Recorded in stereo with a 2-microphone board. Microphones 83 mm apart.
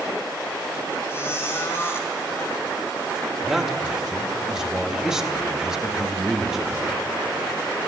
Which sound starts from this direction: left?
A squeak, at 1.1 s.